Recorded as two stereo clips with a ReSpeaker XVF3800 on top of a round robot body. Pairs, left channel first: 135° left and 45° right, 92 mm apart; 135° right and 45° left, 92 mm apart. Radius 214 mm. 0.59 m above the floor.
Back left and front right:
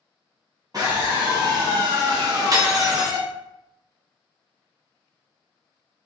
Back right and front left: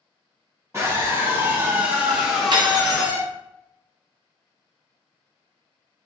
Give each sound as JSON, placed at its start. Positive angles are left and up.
{"t": 0.7, "sound": "a scream", "azimuth_deg": -5, "distance_m": 1.6}
{"t": 2.5, "sound": "cutlery clinking", "azimuth_deg": 5, "distance_m": 0.5}